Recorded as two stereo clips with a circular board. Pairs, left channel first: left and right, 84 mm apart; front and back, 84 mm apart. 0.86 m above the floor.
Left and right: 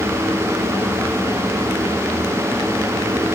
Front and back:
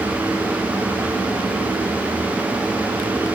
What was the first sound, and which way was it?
Only background noise.